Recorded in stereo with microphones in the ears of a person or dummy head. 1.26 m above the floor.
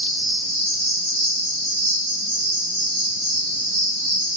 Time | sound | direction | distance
0.0 | an insect | 55° right (ahead or behind) | 0.8 m